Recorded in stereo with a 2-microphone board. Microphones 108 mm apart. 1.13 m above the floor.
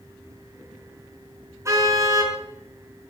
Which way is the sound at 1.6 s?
25° right (ahead or behind).